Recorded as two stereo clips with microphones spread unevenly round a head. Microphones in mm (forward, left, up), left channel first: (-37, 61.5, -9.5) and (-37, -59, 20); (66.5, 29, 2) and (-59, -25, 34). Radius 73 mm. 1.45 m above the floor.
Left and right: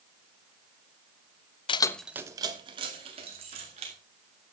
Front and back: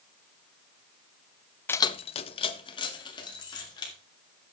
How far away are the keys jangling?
About 0.5 m.